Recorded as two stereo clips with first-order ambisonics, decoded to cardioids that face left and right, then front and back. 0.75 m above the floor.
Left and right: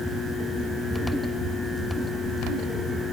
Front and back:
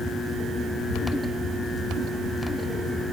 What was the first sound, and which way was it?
Only background noise.